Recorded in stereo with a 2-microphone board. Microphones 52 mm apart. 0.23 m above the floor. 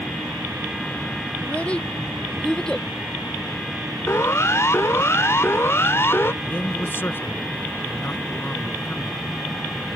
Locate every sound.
1.4 s a child speaking: 25° left (ahead or behind); by 2.9 s 10° left (ahead or behind)
4.1 s a siren: 60° left (ahead or behind); by 6.3 s 45° left (ahead or behind)
6.4 s a man speaking: 40° left (ahead or behind)